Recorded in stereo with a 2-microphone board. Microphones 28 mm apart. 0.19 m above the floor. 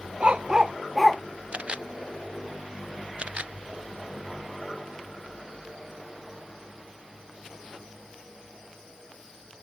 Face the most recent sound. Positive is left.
turn(degrees=-45)  # may be behind; listen again after turning